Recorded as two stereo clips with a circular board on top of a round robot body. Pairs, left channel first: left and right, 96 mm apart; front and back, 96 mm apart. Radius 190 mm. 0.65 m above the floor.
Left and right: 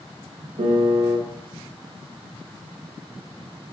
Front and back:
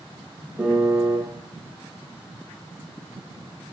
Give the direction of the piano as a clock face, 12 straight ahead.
4 o'clock.